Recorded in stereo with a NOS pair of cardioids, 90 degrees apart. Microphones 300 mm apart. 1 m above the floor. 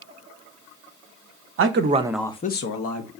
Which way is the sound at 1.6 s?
50° right.